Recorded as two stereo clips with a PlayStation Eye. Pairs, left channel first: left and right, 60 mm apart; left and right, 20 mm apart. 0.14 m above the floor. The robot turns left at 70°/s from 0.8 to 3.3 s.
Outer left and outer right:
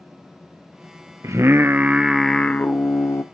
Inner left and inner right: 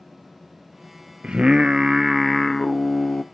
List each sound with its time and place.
1.2 s singing: 110° right, 0.7 m; by 3.2 s 110° left, 0.7 m